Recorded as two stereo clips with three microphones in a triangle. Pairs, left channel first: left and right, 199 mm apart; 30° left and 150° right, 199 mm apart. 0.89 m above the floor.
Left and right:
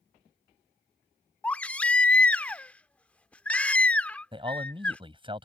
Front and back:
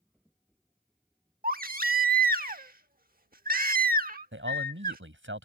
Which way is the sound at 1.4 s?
175° left.